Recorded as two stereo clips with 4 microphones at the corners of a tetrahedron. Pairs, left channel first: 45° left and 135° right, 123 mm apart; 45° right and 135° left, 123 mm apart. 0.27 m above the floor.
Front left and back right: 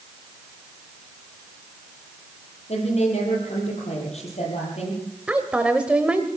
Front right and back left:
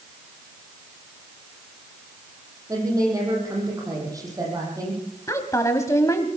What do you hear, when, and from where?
2.7 s a woman speaking: 75° left, 8.5 m
5.3 s a woman speaking: 65° right, 1.2 m